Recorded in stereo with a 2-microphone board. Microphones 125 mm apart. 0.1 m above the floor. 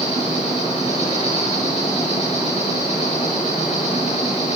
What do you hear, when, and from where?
0.0 s an insect: 80° left, 8.5 m